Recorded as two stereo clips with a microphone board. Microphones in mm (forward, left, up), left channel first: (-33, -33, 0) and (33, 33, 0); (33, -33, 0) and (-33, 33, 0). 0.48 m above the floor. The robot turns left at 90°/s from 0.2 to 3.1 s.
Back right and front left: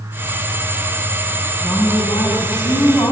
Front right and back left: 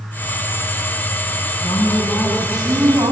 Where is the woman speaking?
60° right, 4.5 m; by 3.1 s 165° left, 4.5 m.